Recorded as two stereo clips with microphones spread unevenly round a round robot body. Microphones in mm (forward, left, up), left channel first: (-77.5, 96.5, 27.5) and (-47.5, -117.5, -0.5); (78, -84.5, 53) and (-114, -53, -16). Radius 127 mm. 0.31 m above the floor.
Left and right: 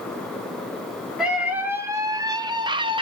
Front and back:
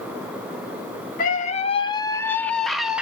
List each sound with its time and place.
1.2 s a scream: 20° right, 1.0 m; by 3.0 s 130° right, 1.2 m